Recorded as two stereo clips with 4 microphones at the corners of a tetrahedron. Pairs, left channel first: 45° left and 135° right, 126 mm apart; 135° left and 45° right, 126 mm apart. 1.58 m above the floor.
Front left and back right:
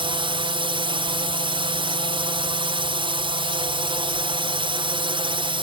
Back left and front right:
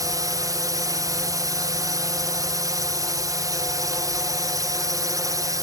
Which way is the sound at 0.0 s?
100° right.